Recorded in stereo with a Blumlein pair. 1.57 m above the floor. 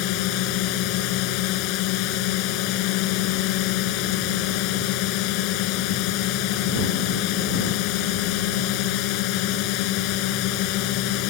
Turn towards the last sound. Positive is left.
turn(degrees=40)